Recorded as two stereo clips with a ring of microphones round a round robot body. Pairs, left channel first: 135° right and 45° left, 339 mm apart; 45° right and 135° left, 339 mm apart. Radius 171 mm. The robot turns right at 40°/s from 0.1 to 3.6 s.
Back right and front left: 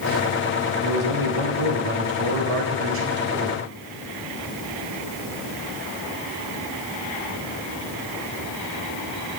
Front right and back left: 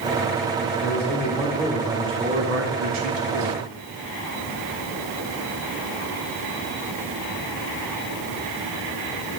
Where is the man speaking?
10° left, 2.5 m; by 3.6 s 120° left, 2.5 m.